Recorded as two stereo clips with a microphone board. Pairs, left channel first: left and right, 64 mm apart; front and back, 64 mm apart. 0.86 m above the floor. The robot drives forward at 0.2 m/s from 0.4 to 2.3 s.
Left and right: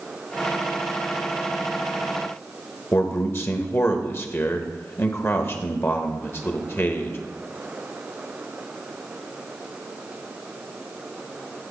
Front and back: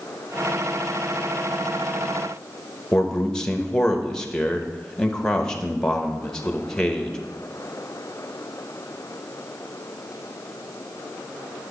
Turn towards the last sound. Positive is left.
turn(degrees=70)